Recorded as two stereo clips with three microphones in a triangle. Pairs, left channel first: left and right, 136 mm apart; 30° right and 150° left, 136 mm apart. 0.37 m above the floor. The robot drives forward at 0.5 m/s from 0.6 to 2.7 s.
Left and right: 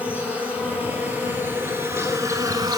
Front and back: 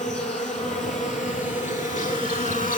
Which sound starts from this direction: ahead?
An insect, at 0.0 s.